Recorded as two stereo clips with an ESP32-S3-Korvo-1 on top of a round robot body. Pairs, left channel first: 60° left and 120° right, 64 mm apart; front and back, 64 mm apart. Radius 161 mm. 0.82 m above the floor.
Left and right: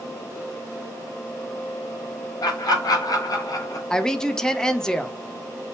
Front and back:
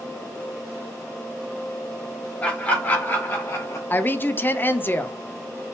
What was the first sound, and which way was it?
Laughter, 65° left.